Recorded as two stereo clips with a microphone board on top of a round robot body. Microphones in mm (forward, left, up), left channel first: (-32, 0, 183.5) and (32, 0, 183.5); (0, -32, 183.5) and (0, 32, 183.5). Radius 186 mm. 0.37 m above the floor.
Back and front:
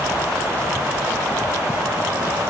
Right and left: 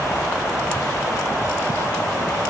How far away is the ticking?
No ticking in this recording.